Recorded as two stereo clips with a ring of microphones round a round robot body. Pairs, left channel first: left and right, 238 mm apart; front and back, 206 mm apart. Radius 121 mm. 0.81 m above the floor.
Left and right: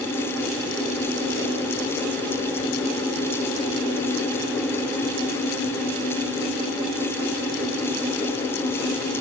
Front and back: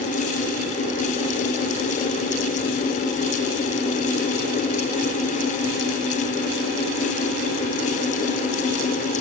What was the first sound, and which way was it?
Only background noise.